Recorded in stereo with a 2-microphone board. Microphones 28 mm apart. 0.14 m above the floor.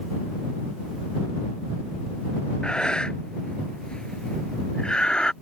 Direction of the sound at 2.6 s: 35° left (ahead or behind).